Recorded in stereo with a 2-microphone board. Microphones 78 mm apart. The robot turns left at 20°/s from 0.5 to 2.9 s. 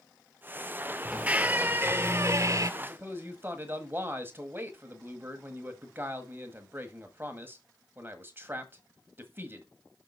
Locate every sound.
1.1 s a squeak: 15° right, 0.6 m; by 2.7 s 50° right, 0.6 m
2.8 s a man speaking: 30° right (ahead or behind), 1.4 m